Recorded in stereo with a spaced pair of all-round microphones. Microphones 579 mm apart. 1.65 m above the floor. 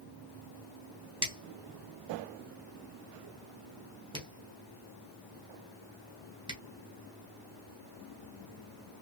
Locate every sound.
1.2 s a finger snap: 10° right (ahead or behind), 1.4 m